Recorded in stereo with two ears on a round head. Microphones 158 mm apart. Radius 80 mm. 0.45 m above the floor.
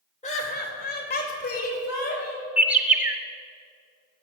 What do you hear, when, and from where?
0.2 s laughter: 40° left (ahead or behind), 1.9 m; by 2.5 s 55° left (ahead or behind), 3.5 m
2.6 s a bird: 10° right (ahead or behind), 0.9 m